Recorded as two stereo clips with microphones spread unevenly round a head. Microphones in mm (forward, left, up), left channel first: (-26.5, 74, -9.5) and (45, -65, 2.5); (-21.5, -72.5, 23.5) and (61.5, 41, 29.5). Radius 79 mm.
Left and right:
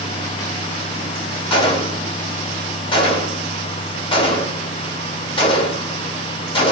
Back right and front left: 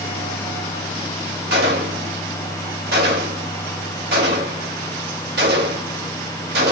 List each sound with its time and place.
1.5 s a gunshot: 60° left, 1.9 m